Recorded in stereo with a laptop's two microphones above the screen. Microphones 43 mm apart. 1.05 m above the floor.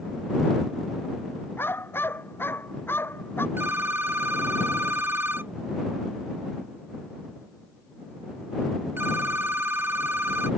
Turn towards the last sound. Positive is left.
turn(degrees=-65)  # may be behind; listen again after turning